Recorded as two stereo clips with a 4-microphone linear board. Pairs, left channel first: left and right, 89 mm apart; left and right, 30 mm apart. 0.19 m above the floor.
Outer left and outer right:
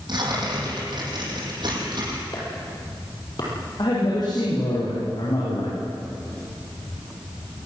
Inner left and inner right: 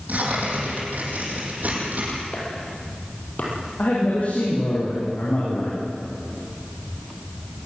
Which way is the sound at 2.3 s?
50° left (ahead or behind).